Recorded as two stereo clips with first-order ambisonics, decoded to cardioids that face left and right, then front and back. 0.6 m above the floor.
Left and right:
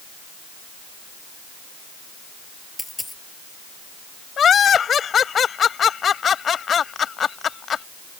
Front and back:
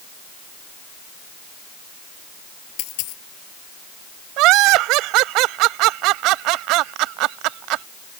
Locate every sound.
2.8 s a dropped coin: 5° left
4.4 s laughter: 155° left